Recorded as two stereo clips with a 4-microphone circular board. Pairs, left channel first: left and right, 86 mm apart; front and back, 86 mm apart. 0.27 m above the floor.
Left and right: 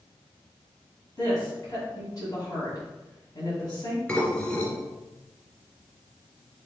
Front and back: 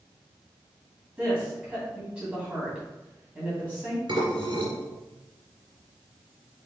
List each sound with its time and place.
1.2 s a woman speaking: 105° left, 2 m
4.1 s dishes clattering: 165° left, 2 m